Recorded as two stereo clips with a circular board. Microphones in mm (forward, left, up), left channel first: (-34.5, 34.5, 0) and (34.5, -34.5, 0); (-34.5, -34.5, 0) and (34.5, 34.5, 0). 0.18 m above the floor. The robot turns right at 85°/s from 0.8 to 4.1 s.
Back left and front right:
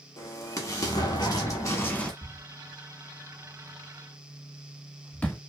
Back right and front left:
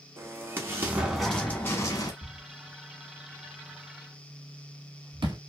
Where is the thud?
100° right, 0.8 m; by 5.4 s 60° left, 0.8 m.